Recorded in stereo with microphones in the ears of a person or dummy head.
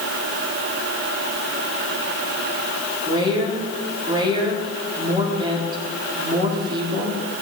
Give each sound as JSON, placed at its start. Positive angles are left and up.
{"t": 3.0, "sound": "a woman speaking", "side_deg": -20, "distance_m": 3.0}